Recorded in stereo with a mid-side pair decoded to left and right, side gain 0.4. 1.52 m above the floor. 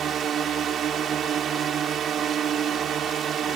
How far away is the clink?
No clink in this recording.